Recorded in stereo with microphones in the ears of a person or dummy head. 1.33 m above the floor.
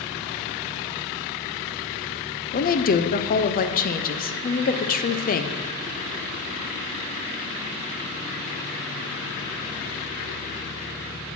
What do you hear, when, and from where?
2.5 s a woman speaking: 45° left (ahead or behind), 0.6 m